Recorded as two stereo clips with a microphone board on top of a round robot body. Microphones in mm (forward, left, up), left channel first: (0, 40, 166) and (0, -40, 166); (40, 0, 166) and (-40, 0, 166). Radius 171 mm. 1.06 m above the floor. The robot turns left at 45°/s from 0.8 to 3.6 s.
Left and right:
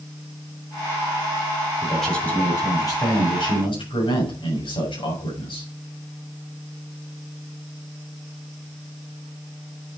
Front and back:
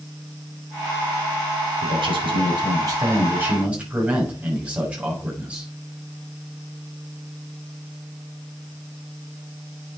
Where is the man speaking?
175° right, 6.5 m; by 5.7 s 105° left, 6.5 m.